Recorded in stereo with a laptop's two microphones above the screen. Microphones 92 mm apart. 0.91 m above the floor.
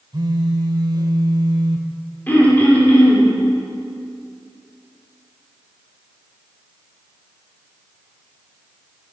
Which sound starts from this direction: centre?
Throat clearing, at 2.3 s.